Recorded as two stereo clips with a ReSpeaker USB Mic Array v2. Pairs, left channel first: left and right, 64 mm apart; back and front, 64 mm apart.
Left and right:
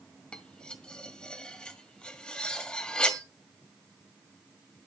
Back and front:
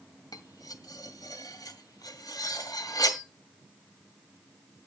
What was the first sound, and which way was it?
Cutlery clinking, 170° left.